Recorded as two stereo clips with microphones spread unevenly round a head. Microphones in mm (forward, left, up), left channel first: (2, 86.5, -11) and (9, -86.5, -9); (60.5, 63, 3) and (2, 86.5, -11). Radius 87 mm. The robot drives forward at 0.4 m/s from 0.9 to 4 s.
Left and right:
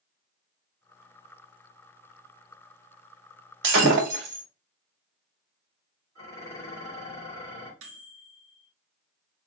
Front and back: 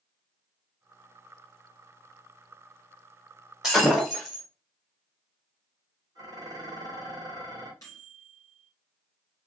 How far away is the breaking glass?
About 2 m.